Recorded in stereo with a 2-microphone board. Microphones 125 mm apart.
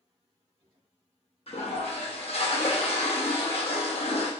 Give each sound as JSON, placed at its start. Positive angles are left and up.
{"t": 1.5, "sound": "a toilet flushing", "side_deg": 55, "distance_m": 0.8}